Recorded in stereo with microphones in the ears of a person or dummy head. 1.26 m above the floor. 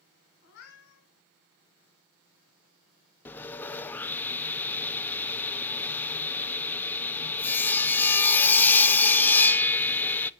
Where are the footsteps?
No footsteps in this recording.